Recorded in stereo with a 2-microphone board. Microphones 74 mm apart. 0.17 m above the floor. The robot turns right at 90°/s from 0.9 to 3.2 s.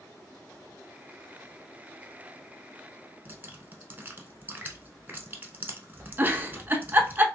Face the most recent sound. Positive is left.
turn(degrees=-25)  # may be behind; listen again after turning